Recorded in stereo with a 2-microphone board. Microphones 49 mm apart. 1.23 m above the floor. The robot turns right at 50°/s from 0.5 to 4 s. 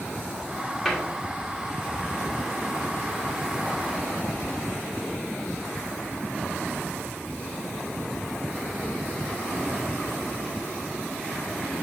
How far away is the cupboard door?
About 1.9 m.